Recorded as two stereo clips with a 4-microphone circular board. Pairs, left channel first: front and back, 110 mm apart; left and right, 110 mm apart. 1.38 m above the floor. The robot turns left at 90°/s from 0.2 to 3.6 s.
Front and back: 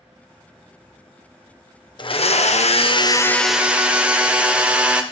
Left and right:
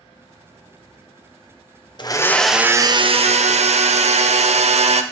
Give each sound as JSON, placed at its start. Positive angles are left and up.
{"t": 2.0, "sound": "a blender", "azimuth_deg": 45, "distance_m": 0.5}